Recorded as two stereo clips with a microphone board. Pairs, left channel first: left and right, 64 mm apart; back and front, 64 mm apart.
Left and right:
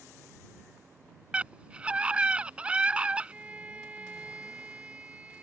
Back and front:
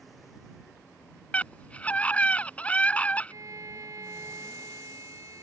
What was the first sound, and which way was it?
A scream, 140° right.